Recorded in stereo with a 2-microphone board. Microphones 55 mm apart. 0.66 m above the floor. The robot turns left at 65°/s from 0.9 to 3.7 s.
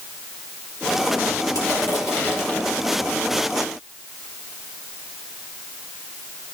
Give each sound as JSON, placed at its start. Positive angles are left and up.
{"t": 1.6, "sound": "crushing", "azimuth_deg": 90, "distance_m": 5.0}